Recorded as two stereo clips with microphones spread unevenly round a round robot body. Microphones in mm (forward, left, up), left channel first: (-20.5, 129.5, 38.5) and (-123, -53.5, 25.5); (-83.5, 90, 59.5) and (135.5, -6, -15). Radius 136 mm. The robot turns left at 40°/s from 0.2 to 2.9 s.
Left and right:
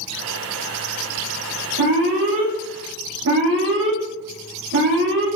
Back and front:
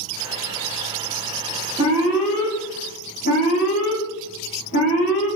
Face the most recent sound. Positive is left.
turn(degrees=-140)